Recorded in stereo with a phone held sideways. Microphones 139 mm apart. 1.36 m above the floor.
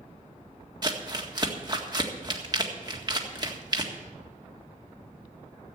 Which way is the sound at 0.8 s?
30° right (ahead or behind).